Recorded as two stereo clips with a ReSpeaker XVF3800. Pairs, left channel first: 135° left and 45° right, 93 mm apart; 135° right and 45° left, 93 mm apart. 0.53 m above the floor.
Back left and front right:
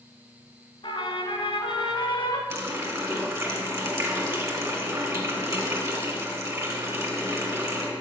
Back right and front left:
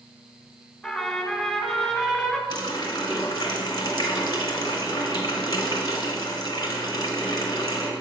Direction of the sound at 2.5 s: 100° right.